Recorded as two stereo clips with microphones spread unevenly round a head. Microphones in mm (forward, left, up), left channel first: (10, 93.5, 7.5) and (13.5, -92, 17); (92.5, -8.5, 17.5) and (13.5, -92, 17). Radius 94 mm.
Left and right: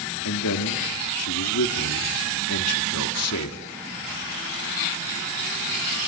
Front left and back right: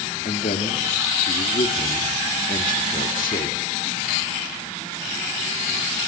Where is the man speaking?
90° left, 2.5 m.